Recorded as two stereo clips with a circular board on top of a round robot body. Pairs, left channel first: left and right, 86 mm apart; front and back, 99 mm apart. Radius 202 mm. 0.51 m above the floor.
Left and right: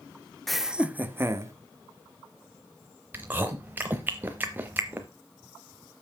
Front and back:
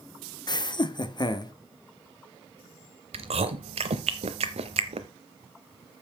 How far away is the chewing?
About 0.5 m.